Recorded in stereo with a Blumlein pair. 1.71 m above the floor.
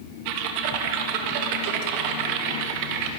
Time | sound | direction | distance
0.2 | typing on a keyboard | 45° right | 1.3 m